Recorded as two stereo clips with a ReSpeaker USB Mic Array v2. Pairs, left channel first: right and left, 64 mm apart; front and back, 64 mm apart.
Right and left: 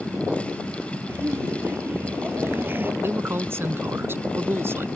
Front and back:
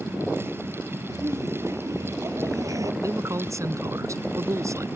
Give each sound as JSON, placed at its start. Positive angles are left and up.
{"t": 1.1, "sound": "laughter", "azimuth_deg": 145}
{"t": 3.0, "sound": "a man speaking", "azimuth_deg": 145}